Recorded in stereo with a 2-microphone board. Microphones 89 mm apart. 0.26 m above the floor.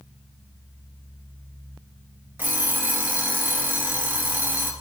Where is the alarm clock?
20° right (ahead or behind), 2.5 m.